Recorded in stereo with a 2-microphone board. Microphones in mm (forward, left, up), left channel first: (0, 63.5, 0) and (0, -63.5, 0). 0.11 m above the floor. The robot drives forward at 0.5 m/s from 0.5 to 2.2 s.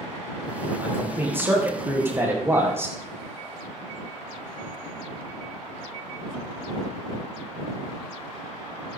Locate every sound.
0.8 s a man speaking: 15° right (ahead or behind), 5 m; by 3.0 s 20° right (ahead or behind), 4.5 m